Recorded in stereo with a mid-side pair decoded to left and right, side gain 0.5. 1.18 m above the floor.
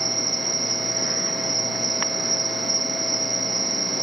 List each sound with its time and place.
0.0 s an insect: 10° right